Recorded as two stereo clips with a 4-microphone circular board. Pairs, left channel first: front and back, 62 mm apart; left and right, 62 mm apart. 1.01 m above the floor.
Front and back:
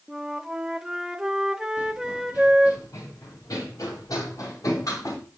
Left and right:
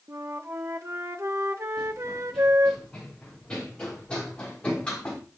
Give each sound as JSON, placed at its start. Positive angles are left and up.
{"t": 0.1, "sound": "a flute", "azimuth_deg": -100, "distance_m": 0.8}
{"t": 1.8, "sound": "running footsteps", "azimuth_deg": 10, "distance_m": 4.0}